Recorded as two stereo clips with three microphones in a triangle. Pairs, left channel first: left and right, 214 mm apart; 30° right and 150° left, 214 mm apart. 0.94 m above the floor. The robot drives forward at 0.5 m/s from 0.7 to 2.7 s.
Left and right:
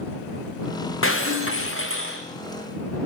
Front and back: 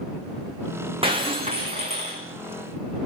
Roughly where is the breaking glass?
Left.